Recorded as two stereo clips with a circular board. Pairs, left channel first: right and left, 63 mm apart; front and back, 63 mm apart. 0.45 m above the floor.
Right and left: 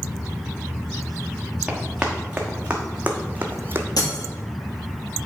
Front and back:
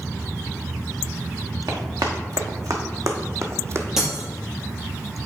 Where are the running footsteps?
170° left, 1.9 m; by 3.9 s 135° left, 0.9 m.